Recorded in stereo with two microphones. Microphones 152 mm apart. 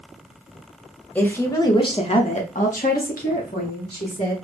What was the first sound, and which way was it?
A woman speaking, 10° left (ahead or behind).